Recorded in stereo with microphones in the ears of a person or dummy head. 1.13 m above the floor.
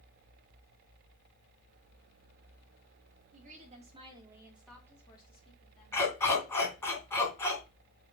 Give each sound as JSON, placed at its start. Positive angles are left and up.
{"t": 3.3, "sound": "a woman speaking", "side_deg": -40, "distance_m": 2.0}
{"t": 5.9, "sound": "a dog barking", "side_deg": 15, "distance_m": 2.5}